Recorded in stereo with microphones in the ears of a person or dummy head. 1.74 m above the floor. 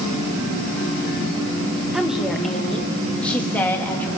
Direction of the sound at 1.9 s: Centre (ahead or behind).